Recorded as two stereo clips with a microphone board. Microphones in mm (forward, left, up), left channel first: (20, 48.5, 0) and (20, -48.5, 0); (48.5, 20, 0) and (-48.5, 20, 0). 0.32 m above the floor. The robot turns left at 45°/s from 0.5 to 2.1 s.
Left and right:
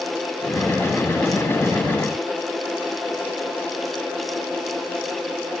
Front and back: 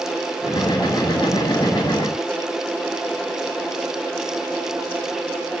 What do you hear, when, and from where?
Only background noise.